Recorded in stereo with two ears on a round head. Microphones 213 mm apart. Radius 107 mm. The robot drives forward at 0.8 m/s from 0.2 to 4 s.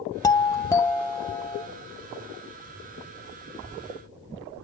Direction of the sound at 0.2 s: 15° left (ahead or behind).